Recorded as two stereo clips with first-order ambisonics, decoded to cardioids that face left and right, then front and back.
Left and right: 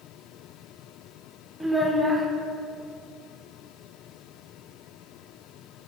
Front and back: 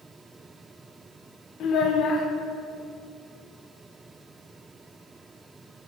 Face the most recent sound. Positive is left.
turn(degrees=0)